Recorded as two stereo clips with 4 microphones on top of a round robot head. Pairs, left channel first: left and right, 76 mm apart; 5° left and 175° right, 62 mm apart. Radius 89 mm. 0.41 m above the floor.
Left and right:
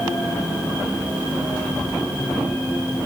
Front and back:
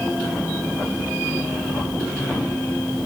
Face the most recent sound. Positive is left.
No sound to turn to.